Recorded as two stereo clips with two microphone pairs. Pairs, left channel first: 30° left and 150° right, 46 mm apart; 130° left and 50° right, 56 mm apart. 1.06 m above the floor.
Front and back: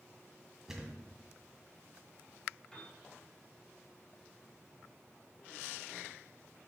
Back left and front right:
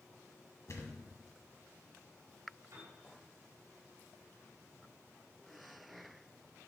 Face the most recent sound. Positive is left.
turn(degrees=-50)